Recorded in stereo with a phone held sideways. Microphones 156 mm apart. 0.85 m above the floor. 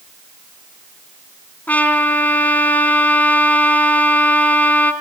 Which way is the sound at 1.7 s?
10° left (ahead or behind).